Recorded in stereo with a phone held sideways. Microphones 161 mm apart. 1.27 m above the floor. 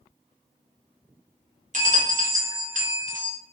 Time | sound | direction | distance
1.7 | a bell | 50° right (ahead or behind) | 0.7 m